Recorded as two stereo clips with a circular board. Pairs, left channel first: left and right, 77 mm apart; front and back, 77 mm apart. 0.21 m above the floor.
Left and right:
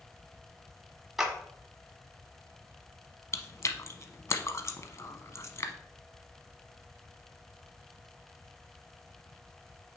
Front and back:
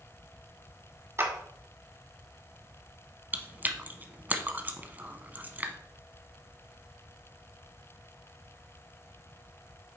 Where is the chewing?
120° left, 0.7 m.